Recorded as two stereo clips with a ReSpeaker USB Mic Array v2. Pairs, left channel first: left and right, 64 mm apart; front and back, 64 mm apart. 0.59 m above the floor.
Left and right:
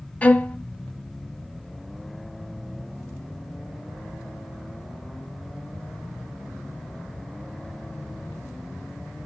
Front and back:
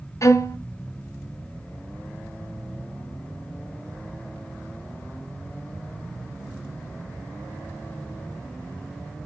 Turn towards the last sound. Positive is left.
turn(degrees=25)